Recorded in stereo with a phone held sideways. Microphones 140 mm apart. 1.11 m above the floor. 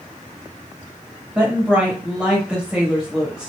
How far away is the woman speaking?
About 1.4 m.